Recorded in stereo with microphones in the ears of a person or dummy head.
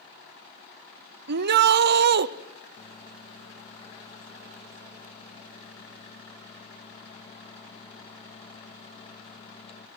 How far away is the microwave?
About 1.7 m.